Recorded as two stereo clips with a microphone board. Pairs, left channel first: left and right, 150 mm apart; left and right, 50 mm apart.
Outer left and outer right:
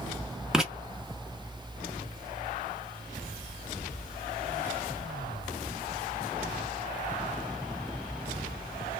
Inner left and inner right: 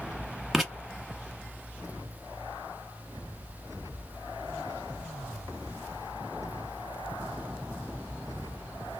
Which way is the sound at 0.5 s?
5° right (ahead or behind).